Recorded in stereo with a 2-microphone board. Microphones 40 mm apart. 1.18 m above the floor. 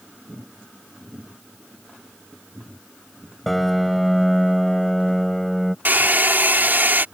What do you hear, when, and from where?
3.5 s a piano: 5° left (ahead or behind)
5.8 s a hair dryer: 50° right (ahead or behind)